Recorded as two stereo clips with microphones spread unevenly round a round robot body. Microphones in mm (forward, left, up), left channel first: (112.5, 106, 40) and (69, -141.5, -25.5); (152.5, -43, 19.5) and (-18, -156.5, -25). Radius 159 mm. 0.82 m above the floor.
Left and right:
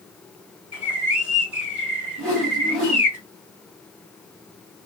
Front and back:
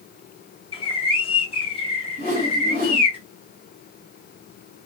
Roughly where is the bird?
Ahead right.